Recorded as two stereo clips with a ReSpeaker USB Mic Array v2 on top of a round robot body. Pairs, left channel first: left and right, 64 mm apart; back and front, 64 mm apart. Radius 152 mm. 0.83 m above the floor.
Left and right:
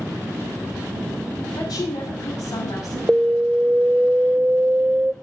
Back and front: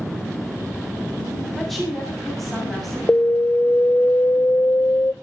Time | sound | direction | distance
1.6 | a woman speaking | 90° left | 8 m
3.1 | an alarm | 145° right | 0.6 m